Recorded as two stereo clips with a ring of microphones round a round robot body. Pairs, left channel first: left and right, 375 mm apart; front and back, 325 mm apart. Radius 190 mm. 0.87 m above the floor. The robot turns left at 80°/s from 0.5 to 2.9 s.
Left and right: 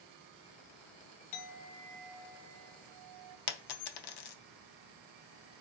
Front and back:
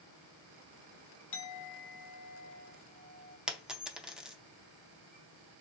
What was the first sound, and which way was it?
A clink, 55° left.